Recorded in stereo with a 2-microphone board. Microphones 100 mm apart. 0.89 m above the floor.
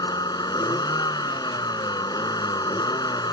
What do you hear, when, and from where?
0.0 s a vehicle: 45° left (ahead or behind)